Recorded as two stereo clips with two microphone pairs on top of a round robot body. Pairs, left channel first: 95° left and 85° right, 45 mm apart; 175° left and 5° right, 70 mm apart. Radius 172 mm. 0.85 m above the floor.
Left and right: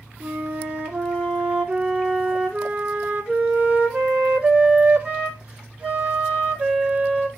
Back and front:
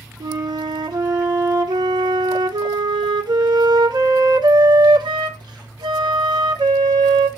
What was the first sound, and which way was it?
A flute, 15° right.